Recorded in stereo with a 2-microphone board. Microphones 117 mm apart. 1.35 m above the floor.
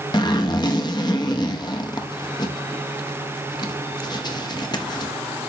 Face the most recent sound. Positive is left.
turn(degrees=35)  # may be behind; listen again after turning